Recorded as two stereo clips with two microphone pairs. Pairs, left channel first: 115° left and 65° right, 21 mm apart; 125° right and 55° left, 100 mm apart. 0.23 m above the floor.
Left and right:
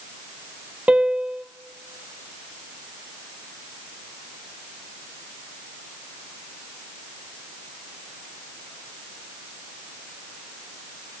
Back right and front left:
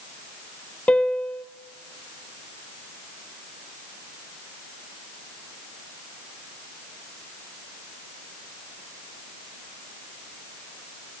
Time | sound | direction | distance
0.9 | a piano | 50° right | 0.9 m